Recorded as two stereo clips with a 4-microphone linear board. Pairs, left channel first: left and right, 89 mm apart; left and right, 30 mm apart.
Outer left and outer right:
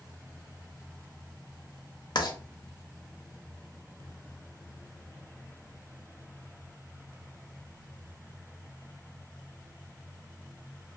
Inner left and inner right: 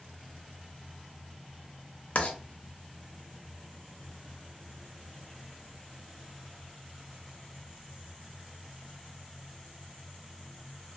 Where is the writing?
50° left (ahead or behind), 0.6 m.